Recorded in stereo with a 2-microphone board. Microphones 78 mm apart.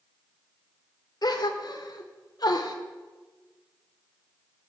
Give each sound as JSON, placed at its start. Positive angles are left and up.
{"t": 1.2, "sound": "a gasp", "side_deg": 55, "distance_m": 0.7}